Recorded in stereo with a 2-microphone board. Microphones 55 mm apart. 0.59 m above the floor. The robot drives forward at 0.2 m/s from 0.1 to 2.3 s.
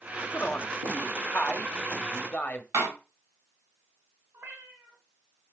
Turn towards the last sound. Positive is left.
turn(degrees=-50)  # may be behind; listen again after turning